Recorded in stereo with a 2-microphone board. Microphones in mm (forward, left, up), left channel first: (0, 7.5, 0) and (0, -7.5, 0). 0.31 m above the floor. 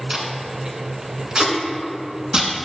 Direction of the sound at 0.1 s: 75° right (ahead or behind).